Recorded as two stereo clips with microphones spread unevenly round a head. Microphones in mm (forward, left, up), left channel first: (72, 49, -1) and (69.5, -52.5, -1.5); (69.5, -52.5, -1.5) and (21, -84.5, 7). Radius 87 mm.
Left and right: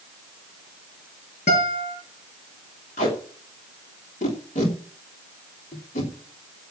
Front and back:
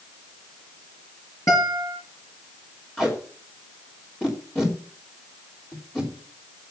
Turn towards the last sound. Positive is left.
turn(degrees=115)